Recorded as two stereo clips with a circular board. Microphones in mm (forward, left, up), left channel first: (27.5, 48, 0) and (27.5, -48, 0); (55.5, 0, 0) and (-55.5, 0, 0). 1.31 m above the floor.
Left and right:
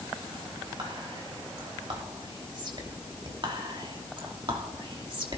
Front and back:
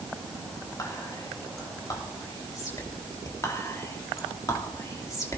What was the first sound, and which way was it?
Whispering, 55° right.